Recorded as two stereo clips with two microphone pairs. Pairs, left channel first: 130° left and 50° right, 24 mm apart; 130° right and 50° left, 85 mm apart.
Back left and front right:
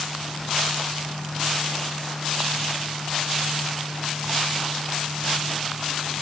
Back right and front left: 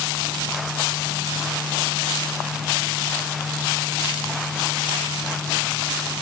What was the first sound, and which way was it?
Only background noise.